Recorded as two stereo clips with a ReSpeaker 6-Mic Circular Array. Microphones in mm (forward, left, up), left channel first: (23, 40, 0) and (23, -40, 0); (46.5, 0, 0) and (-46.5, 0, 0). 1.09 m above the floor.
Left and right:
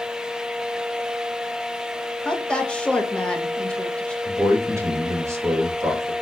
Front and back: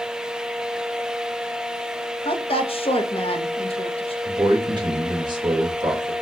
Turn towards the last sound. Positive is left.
turn(degrees=-145)